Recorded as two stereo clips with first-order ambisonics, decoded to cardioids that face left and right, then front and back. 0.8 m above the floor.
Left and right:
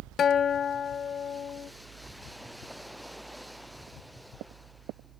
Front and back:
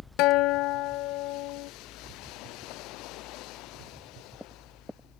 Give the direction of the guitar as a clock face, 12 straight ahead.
11 o'clock.